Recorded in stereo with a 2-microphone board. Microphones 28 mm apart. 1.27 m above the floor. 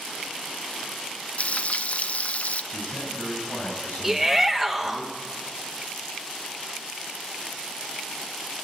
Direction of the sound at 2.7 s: 90° left.